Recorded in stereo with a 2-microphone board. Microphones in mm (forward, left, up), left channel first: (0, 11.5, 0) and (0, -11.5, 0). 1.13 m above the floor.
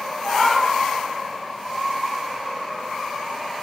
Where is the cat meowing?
80° left, 3 m.